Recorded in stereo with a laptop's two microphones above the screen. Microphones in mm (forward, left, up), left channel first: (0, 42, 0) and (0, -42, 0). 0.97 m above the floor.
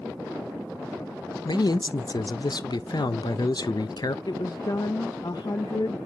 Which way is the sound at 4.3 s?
55° left (ahead or behind).